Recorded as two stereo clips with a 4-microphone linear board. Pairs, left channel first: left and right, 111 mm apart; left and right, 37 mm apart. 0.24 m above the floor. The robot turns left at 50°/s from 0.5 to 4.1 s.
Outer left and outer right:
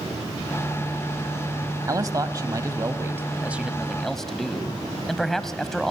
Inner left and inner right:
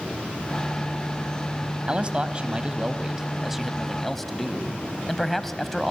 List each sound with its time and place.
1.9 s a man speaking: 75° right, 1.2 m; by 5.9 s 175° left, 1.2 m